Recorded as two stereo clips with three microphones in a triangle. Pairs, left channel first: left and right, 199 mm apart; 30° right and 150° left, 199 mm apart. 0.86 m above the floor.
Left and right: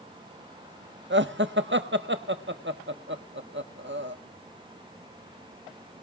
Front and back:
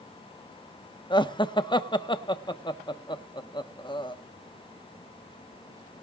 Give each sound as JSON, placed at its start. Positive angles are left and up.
{"t": 1.1, "sound": "laughter", "azimuth_deg": -95, "distance_m": 1.3}